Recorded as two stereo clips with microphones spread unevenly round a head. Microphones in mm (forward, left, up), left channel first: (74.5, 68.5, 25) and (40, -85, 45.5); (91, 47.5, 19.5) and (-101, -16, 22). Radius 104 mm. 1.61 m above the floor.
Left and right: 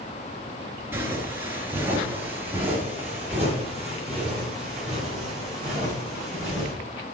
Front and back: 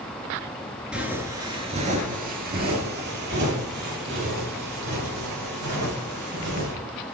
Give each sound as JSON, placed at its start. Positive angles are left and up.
{"t": 0.9, "sound": "footsteps", "azimuth_deg": -90, "distance_m": 1.6}